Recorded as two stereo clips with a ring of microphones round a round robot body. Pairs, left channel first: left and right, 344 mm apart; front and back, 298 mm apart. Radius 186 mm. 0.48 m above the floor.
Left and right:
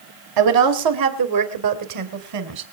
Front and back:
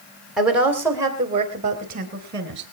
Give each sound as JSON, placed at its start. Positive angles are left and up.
{"t": 0.4, "sound": "a woman speaking", "azimuth_deg": -90, "distance_m": 3.0}